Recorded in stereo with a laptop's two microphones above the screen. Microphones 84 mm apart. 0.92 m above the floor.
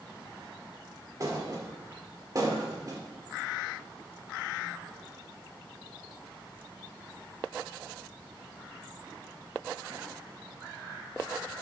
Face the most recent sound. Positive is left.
turn(degrees=-45)  # may be behind; listen again after turning